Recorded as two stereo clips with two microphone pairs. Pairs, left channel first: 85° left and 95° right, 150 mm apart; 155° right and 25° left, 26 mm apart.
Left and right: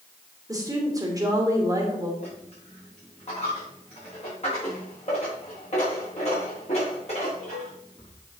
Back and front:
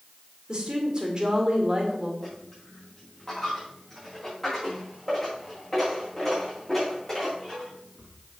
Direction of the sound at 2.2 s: 125° left.